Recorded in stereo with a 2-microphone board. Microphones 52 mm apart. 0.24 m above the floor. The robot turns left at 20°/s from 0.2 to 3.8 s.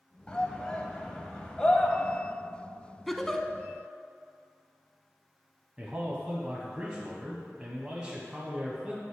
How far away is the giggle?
About 0.5 m.